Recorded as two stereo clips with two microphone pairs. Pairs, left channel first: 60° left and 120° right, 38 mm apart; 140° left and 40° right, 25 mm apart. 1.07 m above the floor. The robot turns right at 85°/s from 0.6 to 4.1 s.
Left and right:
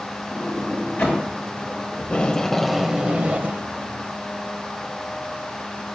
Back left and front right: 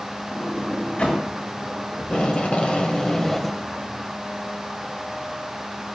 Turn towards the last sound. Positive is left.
turn(degrees=-85)